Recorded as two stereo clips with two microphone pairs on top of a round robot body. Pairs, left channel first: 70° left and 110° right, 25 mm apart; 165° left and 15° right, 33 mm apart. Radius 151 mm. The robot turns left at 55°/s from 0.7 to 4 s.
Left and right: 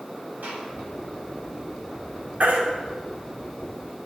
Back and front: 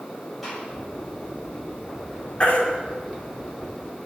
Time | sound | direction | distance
0.4 | a gunshot | 105° right | 6 m
2.4 | a baby crying | 135° right | 2.5 m